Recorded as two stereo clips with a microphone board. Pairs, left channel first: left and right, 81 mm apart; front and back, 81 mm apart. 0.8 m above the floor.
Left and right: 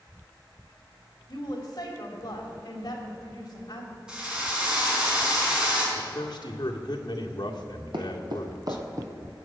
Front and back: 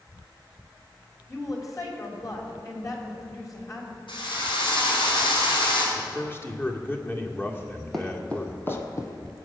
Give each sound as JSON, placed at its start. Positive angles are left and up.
{"t": 1.3, "sound": "a woman speaking", "azimuth_deg": 50, "distance_m": 3.5}
{"t": 4.1, "sound": "a drill", "azimuth_deg": -10, "distance_m": 5.0}
{"t": 6.0, "sound": "a man speaking", "azimuth_deg": 60, "distance_m": 1.9}
{"t": 7.9, "sound": "footsteps", "azimuth_deg": -90, "distance_m": 2.0}